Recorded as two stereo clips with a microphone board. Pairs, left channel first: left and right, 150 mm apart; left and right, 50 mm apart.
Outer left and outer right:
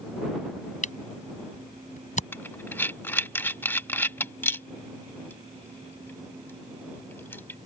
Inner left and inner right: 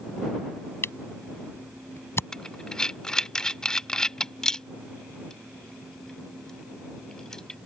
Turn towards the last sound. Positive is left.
turn(degrees=15)  # may be behind; listen again after turning